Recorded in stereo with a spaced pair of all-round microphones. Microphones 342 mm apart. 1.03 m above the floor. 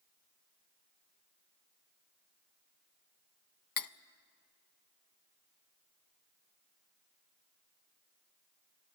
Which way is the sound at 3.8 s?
70° left (ahead or behind).